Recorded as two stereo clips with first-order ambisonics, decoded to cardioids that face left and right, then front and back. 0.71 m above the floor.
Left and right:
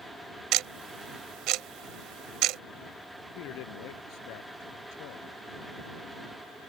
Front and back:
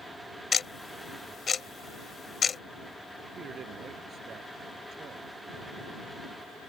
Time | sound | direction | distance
0.5 | ticking | 70° right | ?
3.4 | a man speaking | 115° left | ?